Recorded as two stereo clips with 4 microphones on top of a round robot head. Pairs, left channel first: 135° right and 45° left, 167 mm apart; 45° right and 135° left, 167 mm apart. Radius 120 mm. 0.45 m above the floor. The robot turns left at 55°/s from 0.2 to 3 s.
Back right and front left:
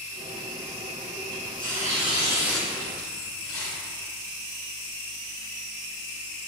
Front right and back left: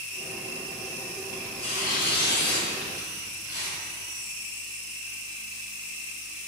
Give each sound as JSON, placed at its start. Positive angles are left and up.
{"t": 1.3, "sound": "tearing paper", "azimuth_deg": 25, "distance_m": 1.7}